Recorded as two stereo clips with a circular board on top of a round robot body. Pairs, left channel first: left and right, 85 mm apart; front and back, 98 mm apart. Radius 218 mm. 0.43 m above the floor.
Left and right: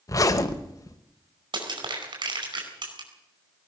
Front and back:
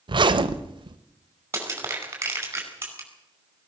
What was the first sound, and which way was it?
A zipper, 140° left.